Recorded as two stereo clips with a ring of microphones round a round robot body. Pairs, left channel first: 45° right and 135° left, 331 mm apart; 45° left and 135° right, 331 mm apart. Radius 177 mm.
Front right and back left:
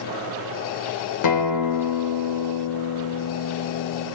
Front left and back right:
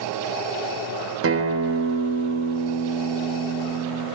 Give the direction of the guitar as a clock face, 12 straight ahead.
3 o'clock.